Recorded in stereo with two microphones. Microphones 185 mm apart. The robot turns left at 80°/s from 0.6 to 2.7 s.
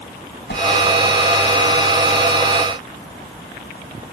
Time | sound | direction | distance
0.5 | a whoosh | 70° left (ahead or behind) | ?